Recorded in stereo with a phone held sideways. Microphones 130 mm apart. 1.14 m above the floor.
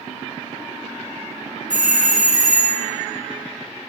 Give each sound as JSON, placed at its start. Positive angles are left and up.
{"t": 1.7, "sound": "a doorbell", "side_deg": -75, "distance_m": 1.9}